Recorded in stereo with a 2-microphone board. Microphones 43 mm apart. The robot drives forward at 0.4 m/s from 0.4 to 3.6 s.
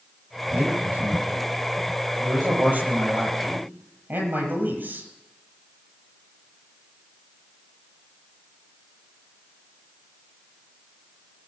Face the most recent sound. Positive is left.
turn(degrees=-45)  # may be behind; listen again after turning